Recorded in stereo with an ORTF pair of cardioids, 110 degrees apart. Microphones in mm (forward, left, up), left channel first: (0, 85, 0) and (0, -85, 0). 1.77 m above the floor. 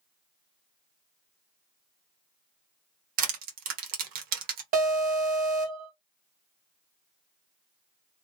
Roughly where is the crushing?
Right.